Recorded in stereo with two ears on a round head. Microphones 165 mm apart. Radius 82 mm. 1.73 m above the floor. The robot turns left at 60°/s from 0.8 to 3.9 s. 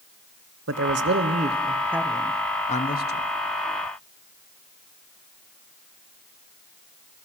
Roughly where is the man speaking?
Right.